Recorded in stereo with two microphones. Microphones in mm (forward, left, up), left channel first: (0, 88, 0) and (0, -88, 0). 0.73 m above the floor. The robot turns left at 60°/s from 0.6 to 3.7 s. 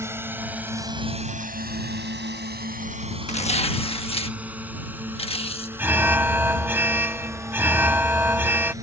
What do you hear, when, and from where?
0.0 s a drone: 15° right (ahead or behind); by 8.8 s 20° right (ahead or behind)
3.3 s tearing paper: 40° left (ahead or behind); by 5.7 s 35° left (ahead or behind)
5.8 s an alarm: 10° right (ahead or behind)